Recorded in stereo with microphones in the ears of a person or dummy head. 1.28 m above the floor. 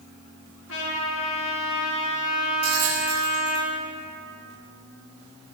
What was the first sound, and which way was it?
A trumpet, 75° left (ahead or behind).